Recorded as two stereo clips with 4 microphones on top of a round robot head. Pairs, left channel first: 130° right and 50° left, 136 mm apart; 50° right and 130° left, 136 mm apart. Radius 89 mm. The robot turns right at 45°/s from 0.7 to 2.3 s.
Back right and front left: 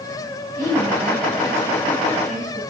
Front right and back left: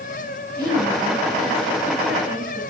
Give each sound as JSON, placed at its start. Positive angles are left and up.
{"t": 0.6, "sound": "a woman speaking", "azimuth_deg": 75, "distance_m": 5.0}